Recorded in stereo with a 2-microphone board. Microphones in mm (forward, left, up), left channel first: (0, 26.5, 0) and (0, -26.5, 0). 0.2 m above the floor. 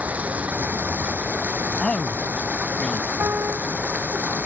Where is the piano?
50° right (ahead or behind).